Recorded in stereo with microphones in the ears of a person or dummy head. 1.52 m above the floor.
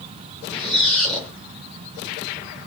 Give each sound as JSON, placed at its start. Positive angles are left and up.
{"t": 0.5, "sound": "a squeak", "side_deg": 0, "distance_m": 0.5}